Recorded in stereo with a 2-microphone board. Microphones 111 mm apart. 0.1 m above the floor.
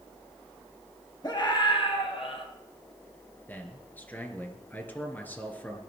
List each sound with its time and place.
1.2 s a scream: 35° left (ahead or behind), 3 m; by 2.5 s 60° left (ahead or behind), 3.5 m
3.5 s a man speaking: 15° left (ahead or behind), 2 m